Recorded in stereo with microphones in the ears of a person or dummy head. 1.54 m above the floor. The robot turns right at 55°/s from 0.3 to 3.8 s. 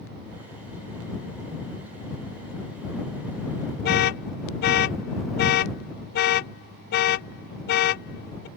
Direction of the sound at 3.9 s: 50° left (ahead or behind).